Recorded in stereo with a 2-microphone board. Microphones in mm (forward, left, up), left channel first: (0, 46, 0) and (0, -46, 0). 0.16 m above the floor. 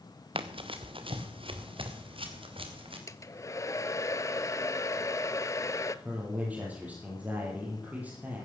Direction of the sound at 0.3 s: 70° right (ahead or behind).